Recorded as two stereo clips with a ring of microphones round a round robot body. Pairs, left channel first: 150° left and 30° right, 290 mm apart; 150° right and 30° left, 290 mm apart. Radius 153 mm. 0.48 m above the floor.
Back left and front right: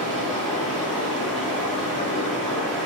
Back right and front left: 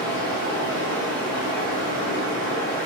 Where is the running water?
120° right, 1.3 m.